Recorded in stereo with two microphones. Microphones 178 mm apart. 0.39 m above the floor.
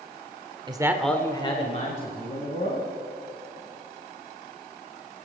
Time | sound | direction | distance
0.7 | a man speaking | 25° right (ahead or behind) | 1.1 m